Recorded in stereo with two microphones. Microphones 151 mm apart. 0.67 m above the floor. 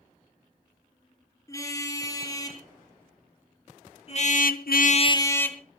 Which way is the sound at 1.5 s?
20° left (ahead or behind).